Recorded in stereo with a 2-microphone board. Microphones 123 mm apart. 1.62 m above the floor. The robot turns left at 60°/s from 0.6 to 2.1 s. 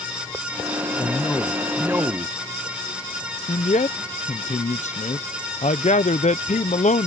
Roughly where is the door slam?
No door slam in this recording.